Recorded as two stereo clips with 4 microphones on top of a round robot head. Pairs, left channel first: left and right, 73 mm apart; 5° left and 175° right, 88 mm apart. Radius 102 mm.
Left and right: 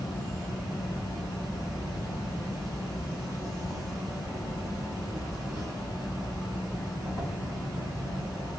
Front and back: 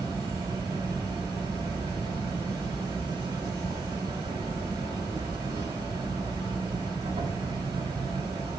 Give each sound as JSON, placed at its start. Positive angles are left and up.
{"t": 0.0, "sound": "an insect", "azimuth_deg": -135, "distance_m": 2.5}